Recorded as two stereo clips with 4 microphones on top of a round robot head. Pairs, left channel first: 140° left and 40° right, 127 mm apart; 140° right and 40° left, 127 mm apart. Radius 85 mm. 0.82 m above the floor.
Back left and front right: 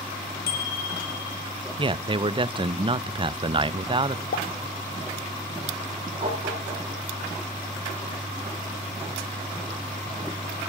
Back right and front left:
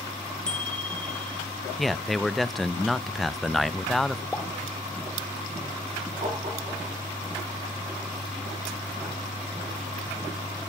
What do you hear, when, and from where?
0.5 s a bicycle bell: 135° left, 2 m
1.8 s a man speaking: 50° right, 0.7 m
4.3 s a pop: 135° left, 1.2 m
6.2 s tapping: straight ahead, 9 m